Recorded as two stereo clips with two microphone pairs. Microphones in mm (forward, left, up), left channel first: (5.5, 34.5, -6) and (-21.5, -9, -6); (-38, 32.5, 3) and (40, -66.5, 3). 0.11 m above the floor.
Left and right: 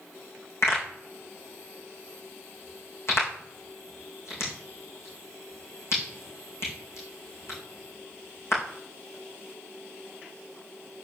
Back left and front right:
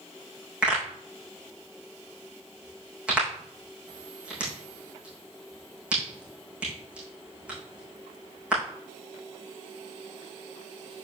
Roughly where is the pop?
Ahead left.